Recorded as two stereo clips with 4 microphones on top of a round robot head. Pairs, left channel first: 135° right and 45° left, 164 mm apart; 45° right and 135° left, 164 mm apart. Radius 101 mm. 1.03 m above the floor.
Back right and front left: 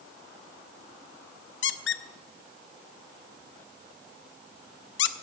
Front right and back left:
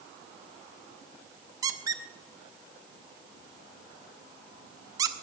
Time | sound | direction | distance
1.6 | a squeak | 155° right | 0.5 m